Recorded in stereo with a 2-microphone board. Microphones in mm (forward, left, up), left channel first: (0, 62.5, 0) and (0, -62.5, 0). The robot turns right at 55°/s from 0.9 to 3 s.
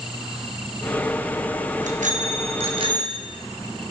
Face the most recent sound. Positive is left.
turn(degrees=-35)